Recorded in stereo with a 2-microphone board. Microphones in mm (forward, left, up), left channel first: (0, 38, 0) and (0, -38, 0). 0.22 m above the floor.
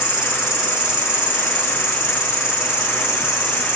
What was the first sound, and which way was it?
An insect, 10° right (ahead or behind).